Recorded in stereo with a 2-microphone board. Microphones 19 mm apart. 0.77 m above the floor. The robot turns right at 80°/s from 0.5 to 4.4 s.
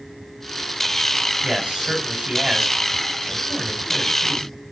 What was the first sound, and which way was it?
A man speaking, 140° right.